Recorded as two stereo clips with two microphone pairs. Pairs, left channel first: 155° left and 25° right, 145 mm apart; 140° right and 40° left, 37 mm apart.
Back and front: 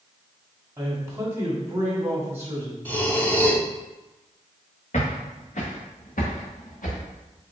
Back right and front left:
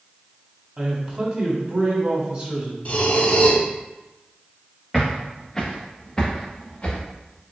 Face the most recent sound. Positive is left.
turn(degrees=155)